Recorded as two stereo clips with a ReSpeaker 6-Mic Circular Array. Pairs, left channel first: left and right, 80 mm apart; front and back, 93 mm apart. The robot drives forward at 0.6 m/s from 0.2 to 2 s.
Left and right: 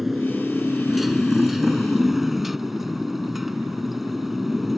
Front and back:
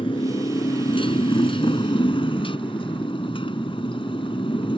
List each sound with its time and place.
0.0 s a motorcycle: 5° right